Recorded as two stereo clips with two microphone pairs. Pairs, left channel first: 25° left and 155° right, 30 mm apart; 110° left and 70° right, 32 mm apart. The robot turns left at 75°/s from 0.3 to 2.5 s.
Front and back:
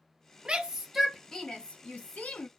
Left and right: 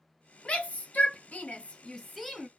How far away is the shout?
About 1.3 m.